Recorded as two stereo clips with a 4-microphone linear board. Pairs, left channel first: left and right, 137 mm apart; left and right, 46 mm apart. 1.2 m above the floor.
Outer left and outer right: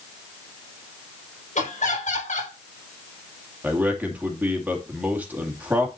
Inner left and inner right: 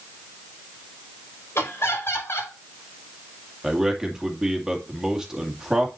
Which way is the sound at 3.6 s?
10° right (ahead or behind).